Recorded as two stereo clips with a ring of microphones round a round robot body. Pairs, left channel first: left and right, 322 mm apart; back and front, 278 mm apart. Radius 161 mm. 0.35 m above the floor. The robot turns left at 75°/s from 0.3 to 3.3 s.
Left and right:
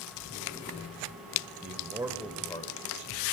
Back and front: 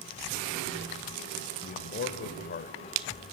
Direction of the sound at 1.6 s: 135° right.